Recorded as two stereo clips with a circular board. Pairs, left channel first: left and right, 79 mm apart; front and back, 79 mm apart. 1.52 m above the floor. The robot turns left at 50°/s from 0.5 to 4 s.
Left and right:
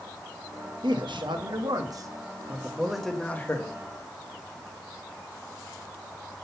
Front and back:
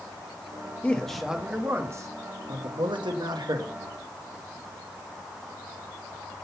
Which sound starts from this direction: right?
A man speaking, at 0.8 s.